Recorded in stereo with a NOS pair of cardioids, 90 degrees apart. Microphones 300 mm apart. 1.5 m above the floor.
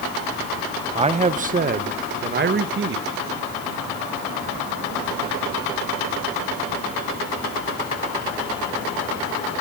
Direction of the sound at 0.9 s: 20° right.